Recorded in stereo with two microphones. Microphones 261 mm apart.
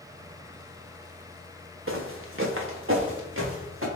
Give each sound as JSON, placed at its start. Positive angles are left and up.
{"t": 1.9, "sound": "footsteps", "side_deg": -55, "distance_m": 0.8}